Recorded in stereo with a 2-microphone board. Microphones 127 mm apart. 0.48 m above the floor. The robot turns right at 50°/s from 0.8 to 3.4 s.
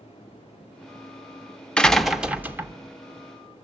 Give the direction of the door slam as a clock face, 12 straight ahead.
6 o'clock.